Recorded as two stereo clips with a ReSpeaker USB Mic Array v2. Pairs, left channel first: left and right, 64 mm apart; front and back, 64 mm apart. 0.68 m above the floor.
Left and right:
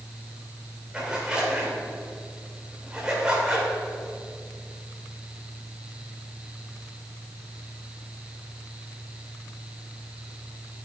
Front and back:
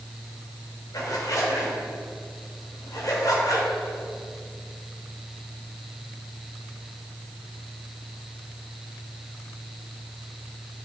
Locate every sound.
0.9 s a zipper: 15° right, 2.5 m